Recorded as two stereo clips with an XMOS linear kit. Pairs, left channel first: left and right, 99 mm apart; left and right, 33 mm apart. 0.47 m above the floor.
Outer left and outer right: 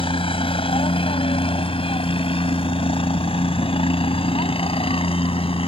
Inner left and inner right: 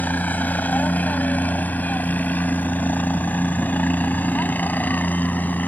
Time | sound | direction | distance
0.0 | a helicopter | 65° left (ahead or behind) | ?